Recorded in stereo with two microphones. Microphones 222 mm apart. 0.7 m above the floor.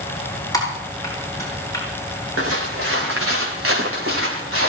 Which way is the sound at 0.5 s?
15° left (ahead or behind).